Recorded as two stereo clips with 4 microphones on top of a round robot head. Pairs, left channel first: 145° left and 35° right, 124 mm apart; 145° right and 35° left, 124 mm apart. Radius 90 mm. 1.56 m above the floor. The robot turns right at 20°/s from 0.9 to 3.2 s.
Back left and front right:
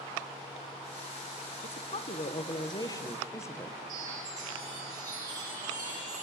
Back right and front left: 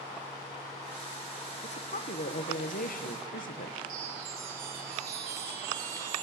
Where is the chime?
25° left, 7 m.